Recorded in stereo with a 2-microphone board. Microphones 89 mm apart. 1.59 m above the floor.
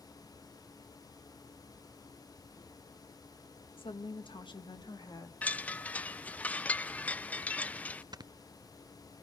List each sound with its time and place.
3.8 s a woman speaking: 80° left, 1.7 m; by 5.3 s 45° left (ahead or behind), 3 m
5.4 s a chime: 15° left (ahead or behind), 0.6 m
8.1 s snoring: 50° right (ahead or behind), 0.6 m